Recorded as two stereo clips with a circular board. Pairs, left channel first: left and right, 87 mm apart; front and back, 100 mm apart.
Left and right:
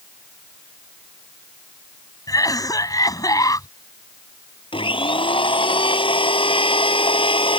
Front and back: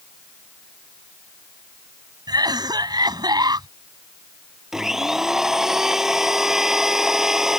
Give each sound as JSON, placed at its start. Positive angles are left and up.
{"t": 2.3, "sound": "a cough", "azimuth_deg": 135}
{"t": 4.7, "sound": "a blender", "azimuth_deg": 95}